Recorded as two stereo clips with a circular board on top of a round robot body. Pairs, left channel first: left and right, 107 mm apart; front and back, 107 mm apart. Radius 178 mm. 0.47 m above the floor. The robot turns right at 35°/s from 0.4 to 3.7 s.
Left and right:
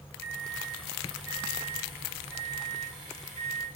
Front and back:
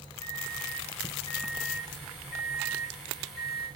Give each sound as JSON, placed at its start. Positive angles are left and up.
{"t": 0.2, "sound": "a microwave", "azimuth_deg": -80, "distance_m": 6.0}